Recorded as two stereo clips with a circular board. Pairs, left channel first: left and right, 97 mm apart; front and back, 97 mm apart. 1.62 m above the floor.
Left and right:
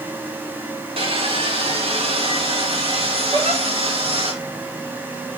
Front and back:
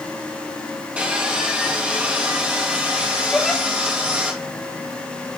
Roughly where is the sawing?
Right.